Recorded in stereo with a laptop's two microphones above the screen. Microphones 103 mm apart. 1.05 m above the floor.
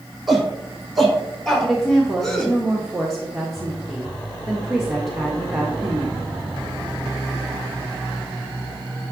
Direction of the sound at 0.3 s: Centre (ahead or behind).